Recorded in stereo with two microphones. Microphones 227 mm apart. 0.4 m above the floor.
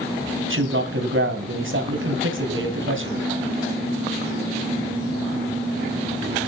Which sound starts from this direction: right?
A man speaking, at 0.5 s.